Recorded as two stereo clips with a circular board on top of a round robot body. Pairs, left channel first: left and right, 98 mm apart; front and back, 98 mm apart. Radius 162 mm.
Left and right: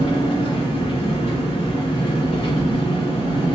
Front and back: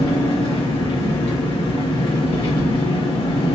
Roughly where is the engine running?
Ahead left.